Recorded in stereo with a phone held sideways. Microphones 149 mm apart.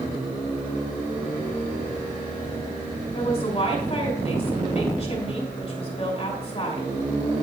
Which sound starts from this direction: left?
A woman speaking, at 3.1 s.